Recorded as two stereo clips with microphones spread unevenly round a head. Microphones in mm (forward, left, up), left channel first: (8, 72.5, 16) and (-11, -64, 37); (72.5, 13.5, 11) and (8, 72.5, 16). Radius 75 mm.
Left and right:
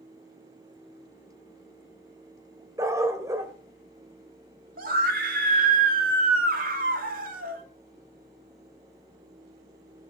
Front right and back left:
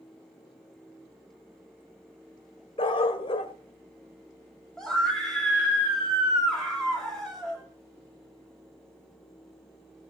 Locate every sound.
2.8 s a dog barking: 35° right, 1.7 m
4.8 s a scream: 130° right, 3 m